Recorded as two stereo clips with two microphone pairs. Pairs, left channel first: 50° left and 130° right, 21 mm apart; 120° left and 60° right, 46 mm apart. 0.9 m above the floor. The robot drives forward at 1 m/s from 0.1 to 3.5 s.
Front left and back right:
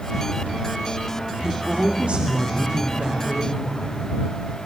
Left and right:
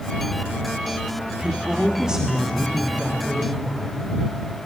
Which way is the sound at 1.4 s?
115° right.